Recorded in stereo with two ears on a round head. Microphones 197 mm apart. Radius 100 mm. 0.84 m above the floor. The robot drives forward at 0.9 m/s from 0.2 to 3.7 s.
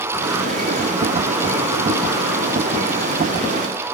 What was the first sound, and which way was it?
Only background noise.